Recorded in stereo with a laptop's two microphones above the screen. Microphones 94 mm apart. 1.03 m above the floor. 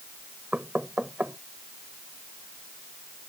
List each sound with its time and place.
0.5 s knocking: 15° right (ahead or behind)